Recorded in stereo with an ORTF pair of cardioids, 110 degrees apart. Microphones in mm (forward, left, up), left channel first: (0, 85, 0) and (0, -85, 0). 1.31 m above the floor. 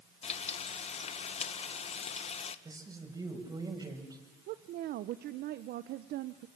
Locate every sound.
0.2 s frying: 40° left, 1.4 m
2.6 s a man speaking: 20° right, 6.5 m
4.5 s a woman speaking: 65° right, 1.0 m